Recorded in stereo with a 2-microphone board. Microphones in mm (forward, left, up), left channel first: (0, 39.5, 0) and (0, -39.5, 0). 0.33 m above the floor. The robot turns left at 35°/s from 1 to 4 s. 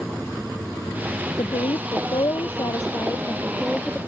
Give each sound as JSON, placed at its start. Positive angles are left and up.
{"t": 1.4, "sound": "a woman speaking", "azimuth_deg": 95}